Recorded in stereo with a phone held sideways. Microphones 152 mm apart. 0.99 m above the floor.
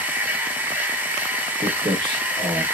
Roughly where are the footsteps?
Right.